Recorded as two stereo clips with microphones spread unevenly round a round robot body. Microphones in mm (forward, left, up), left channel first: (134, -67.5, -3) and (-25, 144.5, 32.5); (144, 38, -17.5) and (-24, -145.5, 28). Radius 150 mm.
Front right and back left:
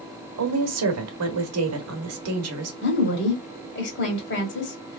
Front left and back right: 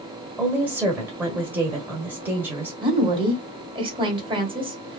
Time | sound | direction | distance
0.4 | a woman speaking | 135° left | 1.1 m
2.8 | a woman speaking | 60° right | 1.9 m